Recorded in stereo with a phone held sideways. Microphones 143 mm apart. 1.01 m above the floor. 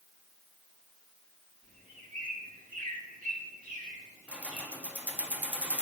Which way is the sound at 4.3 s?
10° right (ahead or behind).